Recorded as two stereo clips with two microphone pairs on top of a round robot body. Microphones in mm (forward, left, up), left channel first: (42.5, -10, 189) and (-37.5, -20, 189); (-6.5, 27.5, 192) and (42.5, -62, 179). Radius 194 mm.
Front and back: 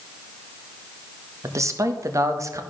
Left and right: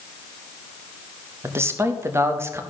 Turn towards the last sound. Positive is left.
turn(degrees=-120)